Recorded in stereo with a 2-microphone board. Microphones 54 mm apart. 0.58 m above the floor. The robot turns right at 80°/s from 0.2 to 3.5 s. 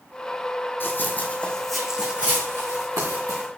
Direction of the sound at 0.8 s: 45° left (ahead or behind).